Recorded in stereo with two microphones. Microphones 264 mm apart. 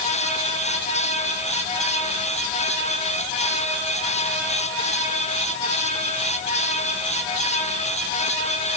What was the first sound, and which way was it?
Only background noise.